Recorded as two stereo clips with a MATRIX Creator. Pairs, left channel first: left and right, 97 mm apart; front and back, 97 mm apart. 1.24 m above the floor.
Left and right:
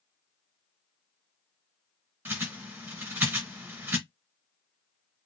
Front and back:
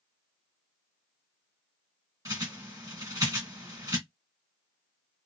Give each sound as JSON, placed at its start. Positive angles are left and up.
{"t": 2.2, "sound": "a bird", "azimuth_deg": -150, "distance_m": 1.4}